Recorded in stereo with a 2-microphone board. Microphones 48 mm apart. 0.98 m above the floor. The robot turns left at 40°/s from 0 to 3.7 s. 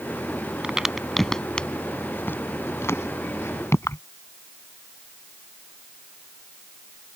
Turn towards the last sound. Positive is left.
turn(degrees=75)  # may be behind; listen again after turning